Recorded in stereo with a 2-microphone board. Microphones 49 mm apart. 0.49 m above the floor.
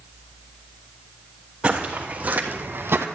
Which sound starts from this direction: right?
Footsteps, at 1.6 s.